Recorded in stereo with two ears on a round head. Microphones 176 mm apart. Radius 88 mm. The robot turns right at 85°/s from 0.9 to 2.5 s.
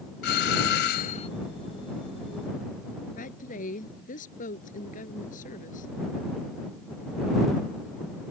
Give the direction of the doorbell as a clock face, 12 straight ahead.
8 o'clock.